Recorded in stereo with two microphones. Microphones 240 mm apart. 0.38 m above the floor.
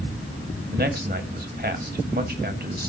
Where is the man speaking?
40° right (ahead or behind), 2 m.